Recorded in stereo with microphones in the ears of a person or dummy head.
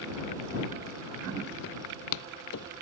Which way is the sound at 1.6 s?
60° left (ahead or behind).